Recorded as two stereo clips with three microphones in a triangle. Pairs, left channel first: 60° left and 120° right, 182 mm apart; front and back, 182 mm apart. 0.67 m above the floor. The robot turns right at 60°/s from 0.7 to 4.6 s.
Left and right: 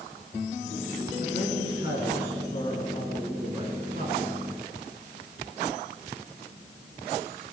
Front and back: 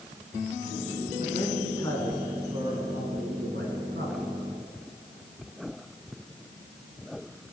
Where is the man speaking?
35° left, 6 m; by 4.4 s 135° right, 6 m.